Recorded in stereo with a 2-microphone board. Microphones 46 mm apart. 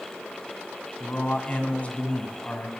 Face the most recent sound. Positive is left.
turn(degrees=30)  # may be behind; listen again after turning